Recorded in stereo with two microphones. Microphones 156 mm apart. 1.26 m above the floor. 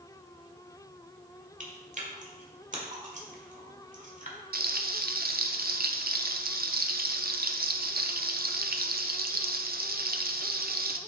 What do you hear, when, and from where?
1.6 s chewing: 50° right (ahead or behind), 1.5 m
4.5 s frying: 70° right (ahead or behind), 0.6 m